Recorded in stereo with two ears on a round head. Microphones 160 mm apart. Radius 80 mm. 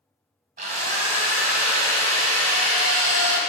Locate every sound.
0.6 s a drill: 45° right (ahead or behind), 1.7 m